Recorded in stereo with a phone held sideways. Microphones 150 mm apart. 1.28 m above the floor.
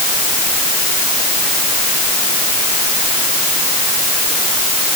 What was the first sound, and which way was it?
Only background noise.